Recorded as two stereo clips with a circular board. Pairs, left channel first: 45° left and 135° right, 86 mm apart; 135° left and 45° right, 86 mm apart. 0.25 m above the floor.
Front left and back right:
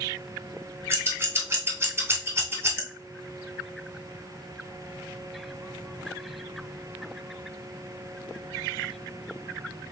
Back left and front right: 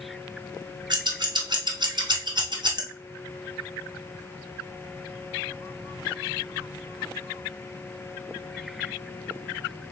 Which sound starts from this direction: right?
Scissors, at 0.9 s.